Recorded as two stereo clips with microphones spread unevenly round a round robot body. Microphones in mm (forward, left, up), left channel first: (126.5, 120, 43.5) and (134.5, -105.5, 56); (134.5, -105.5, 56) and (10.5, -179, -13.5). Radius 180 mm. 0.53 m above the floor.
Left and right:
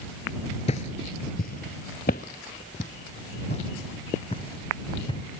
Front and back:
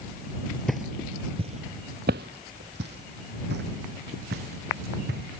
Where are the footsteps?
50° left; by 5.3 s 170° left.